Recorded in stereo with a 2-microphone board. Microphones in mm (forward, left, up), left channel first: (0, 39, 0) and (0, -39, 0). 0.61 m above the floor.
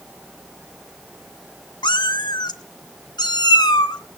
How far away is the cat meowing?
About 0.9 m.